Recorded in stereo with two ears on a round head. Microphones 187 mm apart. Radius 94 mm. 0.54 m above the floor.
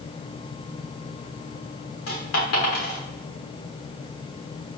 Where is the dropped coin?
70° left (ahead or behind), 6 m.